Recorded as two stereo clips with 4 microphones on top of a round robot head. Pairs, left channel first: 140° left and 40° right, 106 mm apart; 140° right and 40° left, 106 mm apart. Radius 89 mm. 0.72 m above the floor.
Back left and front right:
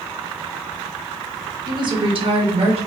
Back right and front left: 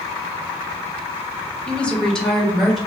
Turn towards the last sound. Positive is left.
turn(degrees=-50)